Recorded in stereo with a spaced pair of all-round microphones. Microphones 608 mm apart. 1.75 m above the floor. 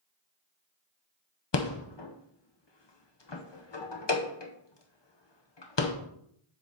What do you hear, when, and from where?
1.5 s a rattle: 45° left (ahead or behind), 0.8 m